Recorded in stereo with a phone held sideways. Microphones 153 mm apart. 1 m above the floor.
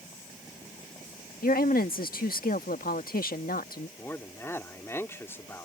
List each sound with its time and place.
1.4 s a woman speaking: 75° left (ahead or behind)
4.0 s a man speaking: 15° left (ahead or behind)